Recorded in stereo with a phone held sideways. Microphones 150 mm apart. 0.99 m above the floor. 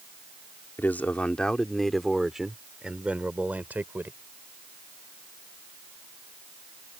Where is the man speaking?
15° left (ahead or behind); by 4.2 s 15° right (ahead or behind).